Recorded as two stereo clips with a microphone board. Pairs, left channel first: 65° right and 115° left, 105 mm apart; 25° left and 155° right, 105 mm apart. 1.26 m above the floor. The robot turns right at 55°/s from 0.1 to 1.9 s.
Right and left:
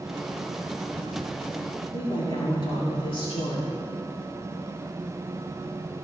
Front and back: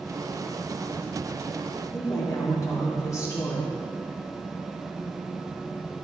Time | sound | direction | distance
1.9 | a woman speaking | 35° right | 4 m